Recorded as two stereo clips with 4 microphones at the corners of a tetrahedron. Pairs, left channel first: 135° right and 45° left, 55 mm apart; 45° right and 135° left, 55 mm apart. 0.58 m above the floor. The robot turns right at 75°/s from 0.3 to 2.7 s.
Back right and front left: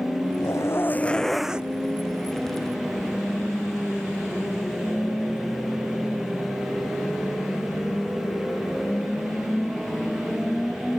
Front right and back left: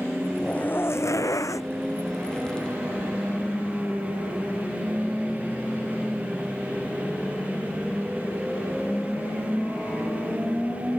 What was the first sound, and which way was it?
A zipper, 115° right.